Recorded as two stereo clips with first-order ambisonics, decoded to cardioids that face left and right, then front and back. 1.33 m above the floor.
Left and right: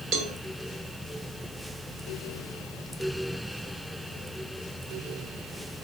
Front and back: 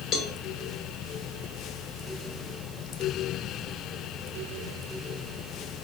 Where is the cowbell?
50° right, 0.5 m.